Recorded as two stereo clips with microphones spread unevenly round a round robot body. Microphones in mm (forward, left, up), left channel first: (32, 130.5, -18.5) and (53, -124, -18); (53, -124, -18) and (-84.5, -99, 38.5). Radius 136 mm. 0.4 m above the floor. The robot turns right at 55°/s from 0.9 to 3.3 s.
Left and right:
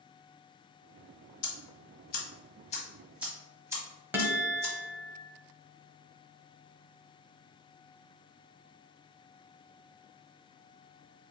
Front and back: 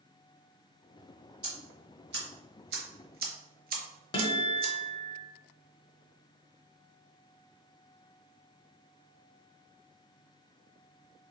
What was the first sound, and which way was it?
Ticking, 90° left.